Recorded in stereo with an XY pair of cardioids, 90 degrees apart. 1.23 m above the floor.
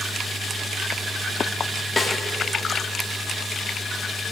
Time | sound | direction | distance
2.0 | a snare drum | 30° left | 1.4 m